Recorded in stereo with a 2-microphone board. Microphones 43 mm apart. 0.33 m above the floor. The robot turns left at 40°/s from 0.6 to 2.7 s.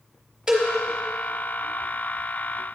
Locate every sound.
0.5 s a cowbell: 10° right (ahead or behind), 1.1 m